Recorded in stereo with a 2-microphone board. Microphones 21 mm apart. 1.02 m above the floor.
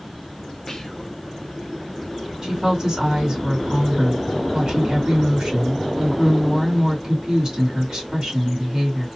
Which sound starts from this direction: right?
A woman speaking, at 2.4 s.